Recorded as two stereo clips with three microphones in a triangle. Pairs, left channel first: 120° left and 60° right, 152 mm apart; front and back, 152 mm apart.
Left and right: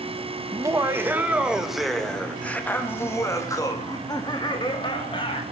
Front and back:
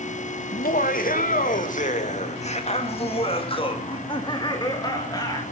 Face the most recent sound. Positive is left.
turn(degrees=65)